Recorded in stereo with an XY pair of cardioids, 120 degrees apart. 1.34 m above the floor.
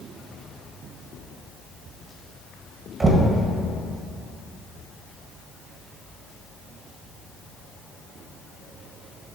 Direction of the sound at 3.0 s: 30° right.